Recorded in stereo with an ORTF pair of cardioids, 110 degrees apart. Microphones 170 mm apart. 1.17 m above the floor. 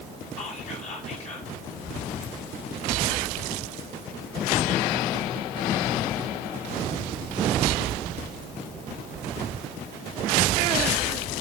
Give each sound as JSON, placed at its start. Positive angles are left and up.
{"t": 0.4, "sound": "whispering", "azimuth_deg": 40, "distance_m": 1.0}